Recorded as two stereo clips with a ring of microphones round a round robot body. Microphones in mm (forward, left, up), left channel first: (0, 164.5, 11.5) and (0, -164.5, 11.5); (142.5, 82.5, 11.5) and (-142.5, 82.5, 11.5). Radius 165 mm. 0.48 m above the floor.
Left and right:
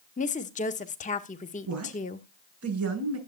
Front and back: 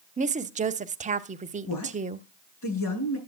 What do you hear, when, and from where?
0.2 s a woman speaking: 140° left, 1.0 m
1.7 s a woman speaking: 45° right, 6.5 m